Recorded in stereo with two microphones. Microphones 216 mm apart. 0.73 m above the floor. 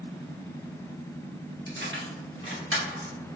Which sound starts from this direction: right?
Keys jangling, at 1.7 s.